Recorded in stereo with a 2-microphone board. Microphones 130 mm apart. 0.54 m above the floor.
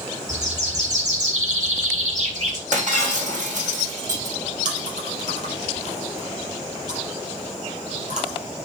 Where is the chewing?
65° right (ahead or behind), 4.5 m.